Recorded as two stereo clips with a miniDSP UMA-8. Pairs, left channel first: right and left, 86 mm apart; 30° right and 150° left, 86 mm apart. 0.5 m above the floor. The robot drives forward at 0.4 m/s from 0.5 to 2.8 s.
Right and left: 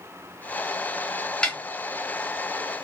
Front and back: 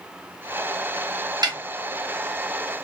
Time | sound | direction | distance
1.4 | a snare drum | 170° right | 0.9 m